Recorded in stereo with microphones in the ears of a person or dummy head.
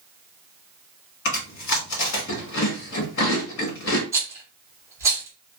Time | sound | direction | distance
1.2 | chewing | 75° left (ahead or behind) | 1.4 m
4.1 | a rattle | 20° right (ahead or behind) | 0.9 m